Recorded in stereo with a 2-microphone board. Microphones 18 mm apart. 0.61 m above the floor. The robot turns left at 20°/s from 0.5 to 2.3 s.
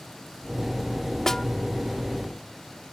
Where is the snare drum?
25° left (ahead or behind); by 1.5 s 30° left (ahead or behind).